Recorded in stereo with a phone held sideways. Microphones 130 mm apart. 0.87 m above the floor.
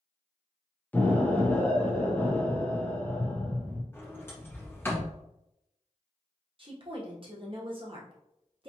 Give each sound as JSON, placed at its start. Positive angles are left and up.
{"t": 0.9, "sound": "an explosion", "side_deg": 15, "distance_m": 0.9}
{"t": 3.9, "sound": "a sliding door", "side_deg": 20, "distance_m": 1.3}
{"t": 6.6, "sound": "a woman speaking", "side_deg": -40, "distance_m": 1.1}